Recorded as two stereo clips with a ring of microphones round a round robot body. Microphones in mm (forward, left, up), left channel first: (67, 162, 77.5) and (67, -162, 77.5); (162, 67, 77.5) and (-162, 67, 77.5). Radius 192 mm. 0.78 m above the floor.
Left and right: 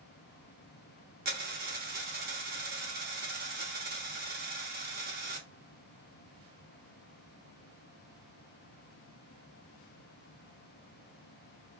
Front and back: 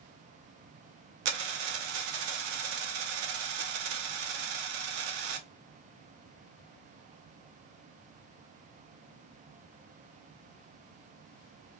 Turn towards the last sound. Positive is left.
turn(degrees=-155)